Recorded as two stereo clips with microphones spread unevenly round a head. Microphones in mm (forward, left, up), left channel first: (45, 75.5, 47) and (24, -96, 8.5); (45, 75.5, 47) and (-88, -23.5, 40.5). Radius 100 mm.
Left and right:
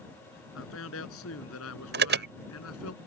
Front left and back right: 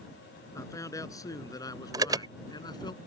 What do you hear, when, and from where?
0.5 s a man speaking: 110° left; by 2.9 s 105° left
1.9 s an alarm: 70° right